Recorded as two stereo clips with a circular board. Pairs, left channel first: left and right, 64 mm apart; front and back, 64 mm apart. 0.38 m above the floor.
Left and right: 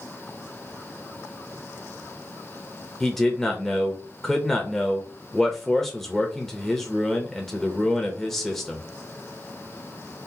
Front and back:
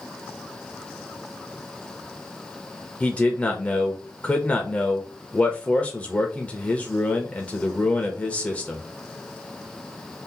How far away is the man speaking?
About 0.9 m.